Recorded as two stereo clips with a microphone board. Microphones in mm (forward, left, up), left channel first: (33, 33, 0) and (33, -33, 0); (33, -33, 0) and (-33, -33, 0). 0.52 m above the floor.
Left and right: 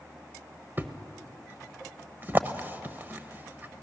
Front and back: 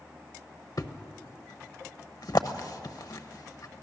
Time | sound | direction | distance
0.8 | a thud | 30° right | 0.9 m